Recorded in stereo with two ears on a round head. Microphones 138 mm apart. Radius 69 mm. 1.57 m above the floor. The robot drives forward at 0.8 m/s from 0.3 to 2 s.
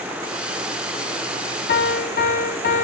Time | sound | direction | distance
1.7 | a piano | 70° left (ahead or behind) | 1.3 m